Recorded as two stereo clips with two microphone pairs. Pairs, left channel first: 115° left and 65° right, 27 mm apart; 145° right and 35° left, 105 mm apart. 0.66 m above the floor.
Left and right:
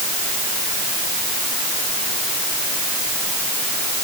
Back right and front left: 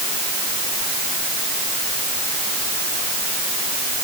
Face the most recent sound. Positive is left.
No sound to turn to.